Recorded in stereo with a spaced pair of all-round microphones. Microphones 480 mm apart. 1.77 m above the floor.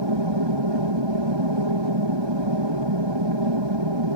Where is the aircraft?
65° right (ahead or behind).